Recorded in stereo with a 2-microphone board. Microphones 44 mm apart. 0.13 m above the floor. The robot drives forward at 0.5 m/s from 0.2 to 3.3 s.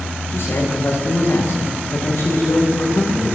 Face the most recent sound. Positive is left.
turn(degrees=80)